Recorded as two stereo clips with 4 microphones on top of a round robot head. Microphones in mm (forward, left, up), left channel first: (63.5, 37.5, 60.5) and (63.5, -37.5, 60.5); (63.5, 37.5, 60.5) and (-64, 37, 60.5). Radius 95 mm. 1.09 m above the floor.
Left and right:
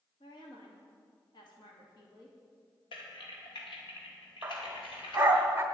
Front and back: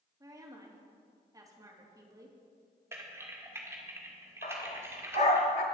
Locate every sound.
0.2 s a woman speaking: 115° left, 2.5 m
2.9 s typing on a keyboard: 110° left, 1.9 m
4.4 s a dog barking: 35° right, 0.9 m